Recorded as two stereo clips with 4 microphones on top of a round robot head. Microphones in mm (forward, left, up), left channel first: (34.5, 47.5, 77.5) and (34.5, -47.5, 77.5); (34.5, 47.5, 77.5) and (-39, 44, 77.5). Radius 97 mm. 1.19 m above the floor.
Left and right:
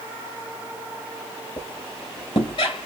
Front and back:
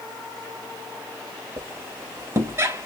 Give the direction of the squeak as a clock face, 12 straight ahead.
7 o'clock.